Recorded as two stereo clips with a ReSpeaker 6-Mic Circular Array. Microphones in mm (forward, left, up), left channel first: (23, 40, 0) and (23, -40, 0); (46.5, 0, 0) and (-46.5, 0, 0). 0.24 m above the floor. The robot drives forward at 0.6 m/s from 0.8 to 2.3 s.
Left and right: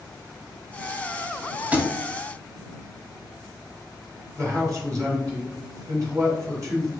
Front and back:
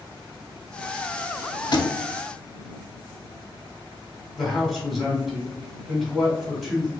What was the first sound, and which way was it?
A thud, 20° right.